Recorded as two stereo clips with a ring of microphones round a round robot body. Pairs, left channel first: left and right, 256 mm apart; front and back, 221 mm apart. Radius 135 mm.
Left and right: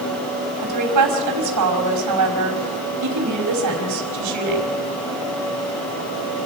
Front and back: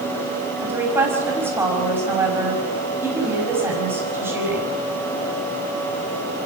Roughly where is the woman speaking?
Right.